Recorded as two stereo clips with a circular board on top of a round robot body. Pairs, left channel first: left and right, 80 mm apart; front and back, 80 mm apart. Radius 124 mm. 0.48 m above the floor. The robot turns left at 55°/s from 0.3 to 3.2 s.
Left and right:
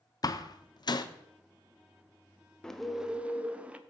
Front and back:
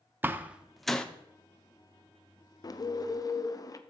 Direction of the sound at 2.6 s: 10° left.